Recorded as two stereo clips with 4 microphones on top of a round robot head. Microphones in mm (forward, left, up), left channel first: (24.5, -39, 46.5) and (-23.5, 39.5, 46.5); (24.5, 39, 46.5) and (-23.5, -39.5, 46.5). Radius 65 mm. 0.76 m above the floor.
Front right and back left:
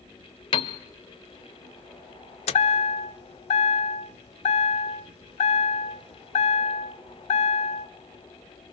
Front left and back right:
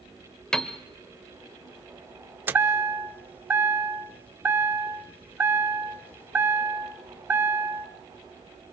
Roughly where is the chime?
Ahead right.